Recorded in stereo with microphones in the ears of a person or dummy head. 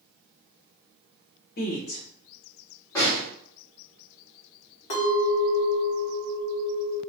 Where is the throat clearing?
No throat clearing in this recording.